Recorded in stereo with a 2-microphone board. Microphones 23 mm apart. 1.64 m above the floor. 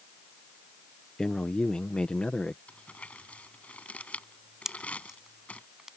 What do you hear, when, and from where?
1.2 s a man speaking: 25° left (ahead or behind); by 2.6 s 50° left (ahead or behind)
2.7 s crumpling: 80° left
4.7 s a pop: 20° right (ahead or behind)